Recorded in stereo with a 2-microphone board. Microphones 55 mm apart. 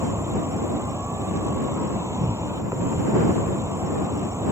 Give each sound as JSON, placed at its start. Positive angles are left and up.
{"t": 0.0, "sound": "an insect", "side_deg": -55}